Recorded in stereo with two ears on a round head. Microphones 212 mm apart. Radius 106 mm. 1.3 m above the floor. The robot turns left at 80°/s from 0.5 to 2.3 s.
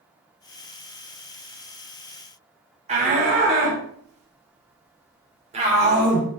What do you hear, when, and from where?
2.9 s a shout: 30° right (ahead or behind), 4 m